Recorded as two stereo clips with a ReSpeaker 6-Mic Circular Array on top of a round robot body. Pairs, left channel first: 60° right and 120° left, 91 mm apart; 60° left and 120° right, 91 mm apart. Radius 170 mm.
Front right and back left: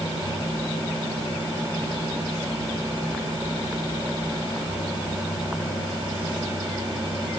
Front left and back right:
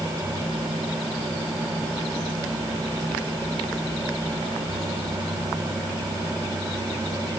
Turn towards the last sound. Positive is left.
No sound to turn to.